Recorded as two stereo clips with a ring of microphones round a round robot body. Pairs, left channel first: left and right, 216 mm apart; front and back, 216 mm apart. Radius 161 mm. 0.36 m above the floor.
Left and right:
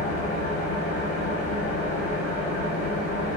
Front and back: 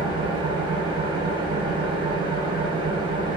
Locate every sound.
0.0 s an engine running: 120° left, 0.8 m